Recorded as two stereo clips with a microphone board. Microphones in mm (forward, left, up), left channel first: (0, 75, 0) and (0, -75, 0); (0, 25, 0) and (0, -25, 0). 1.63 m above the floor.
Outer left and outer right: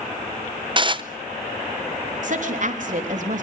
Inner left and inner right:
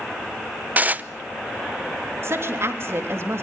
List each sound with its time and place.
0.8 s dishes clattering: 35° right (ahead or behind), 0.7 m
2.2 s a woman speaking: 60° right (ahead or behind), 3.5 m